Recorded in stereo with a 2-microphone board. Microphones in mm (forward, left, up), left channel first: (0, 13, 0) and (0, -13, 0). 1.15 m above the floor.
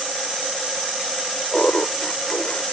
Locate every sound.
1.5 s laughter: 50° left (ahead or behind)